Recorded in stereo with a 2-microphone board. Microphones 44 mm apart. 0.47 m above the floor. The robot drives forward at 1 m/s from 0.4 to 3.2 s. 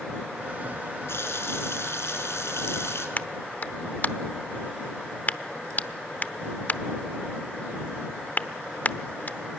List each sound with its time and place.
1.1 s a running tap: 70° left (ahead or behind), 4.5 m; by 3.1 s 80° left, 4.5 m
3.2 s a clap: 40° left (ahead or behind), 0.8 m